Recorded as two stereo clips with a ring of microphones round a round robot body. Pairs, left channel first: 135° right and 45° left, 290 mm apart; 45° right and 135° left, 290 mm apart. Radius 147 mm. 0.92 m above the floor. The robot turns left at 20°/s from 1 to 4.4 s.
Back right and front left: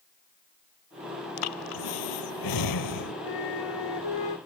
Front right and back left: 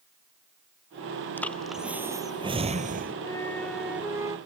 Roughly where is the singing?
I don't hear singing.